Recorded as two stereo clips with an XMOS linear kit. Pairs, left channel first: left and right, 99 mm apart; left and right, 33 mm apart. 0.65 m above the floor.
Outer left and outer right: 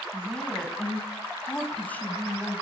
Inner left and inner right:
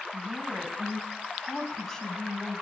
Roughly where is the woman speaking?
Centre.